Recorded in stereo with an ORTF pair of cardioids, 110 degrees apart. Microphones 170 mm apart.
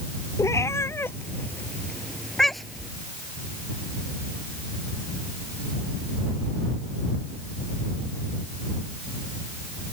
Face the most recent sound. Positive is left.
turn(degrees=-5)